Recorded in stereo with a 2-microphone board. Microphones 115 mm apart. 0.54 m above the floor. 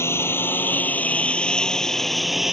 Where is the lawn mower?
20° left (ahead or behind); by 2.5 s 5° right (ahead or behind).